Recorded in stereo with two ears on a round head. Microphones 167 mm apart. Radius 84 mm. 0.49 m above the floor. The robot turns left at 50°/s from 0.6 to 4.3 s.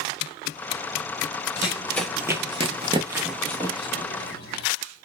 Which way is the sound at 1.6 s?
30° left (ahead or behind).